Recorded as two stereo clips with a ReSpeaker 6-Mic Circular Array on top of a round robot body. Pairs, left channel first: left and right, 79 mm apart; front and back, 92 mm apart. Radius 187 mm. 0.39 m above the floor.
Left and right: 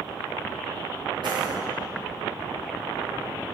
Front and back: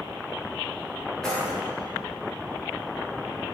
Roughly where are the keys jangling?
Right.